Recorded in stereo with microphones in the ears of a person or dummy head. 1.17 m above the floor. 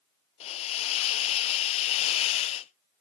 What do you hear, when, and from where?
0.4 s a hiss: 45° left (ahead or behind), 0.5 m